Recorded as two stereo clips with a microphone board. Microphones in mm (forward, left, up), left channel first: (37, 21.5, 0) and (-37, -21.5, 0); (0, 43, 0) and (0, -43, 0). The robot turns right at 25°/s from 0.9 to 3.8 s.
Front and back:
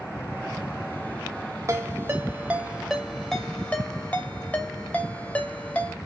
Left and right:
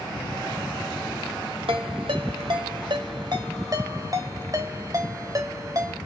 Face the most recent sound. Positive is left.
turn(degrees=-45)